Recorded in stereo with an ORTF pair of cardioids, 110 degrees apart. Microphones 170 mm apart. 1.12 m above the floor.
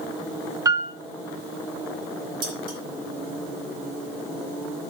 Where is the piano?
20° right, 1.3 m.